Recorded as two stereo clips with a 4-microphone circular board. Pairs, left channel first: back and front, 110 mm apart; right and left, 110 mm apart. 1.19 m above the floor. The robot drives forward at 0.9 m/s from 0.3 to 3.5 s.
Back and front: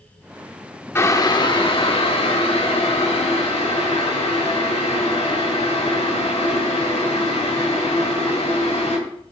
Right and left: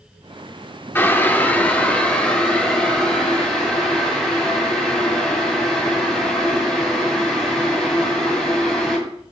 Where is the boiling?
140° right, 0.8 m; by 9.0 s 175° right, 2.5 m.